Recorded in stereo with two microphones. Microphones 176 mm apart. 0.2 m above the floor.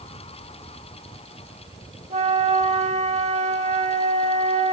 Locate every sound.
2.1 s a flute: 40° right (ahead or behind), 0.6 m